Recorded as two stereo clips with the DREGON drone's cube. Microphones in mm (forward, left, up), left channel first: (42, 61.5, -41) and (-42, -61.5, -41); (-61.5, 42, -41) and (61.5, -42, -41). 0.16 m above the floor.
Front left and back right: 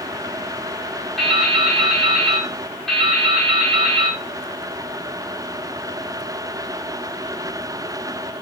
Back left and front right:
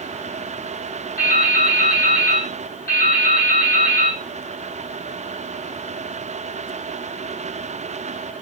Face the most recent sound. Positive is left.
turn(degrees=145)